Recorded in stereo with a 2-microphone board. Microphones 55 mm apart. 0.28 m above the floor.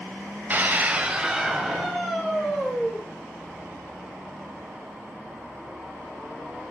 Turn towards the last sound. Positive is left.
turn(degrees=15)  # may be behind; listen again after turning